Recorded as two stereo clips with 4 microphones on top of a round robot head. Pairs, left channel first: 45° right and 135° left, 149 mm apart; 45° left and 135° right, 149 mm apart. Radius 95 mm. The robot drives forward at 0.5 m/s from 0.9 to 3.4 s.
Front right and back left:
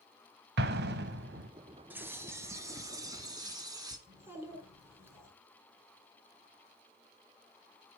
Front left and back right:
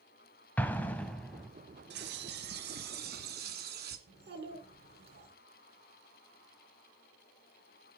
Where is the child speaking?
150° right, 4.5 m.